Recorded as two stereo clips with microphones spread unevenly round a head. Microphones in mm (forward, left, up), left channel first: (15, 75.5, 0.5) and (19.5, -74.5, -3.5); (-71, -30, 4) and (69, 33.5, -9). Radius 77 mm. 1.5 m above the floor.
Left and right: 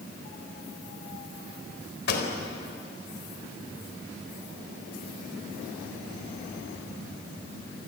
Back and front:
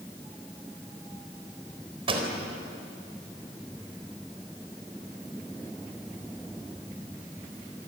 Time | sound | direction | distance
2.1 | a pop | 85° left | 4 m